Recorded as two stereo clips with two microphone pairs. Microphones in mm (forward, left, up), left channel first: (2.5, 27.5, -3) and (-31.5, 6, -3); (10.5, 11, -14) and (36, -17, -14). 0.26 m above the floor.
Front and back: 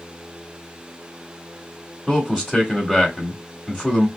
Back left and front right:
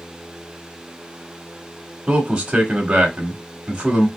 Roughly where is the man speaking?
Ahead.